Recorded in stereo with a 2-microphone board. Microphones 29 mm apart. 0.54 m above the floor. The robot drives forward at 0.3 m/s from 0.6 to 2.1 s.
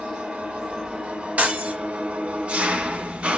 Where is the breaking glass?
70° right (ahead or behind), 1.6 m; by 1.8 s 65° right (ahead or behind), 1.6 m.